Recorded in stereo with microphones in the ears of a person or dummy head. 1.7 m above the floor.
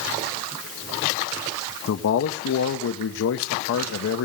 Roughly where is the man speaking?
Left.